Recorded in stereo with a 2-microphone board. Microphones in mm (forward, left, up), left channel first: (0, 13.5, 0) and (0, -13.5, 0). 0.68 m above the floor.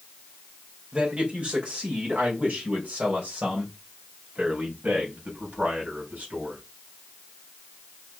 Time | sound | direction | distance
0.9 | a man speaking | 50° right (ahead or behind) | 2.5 m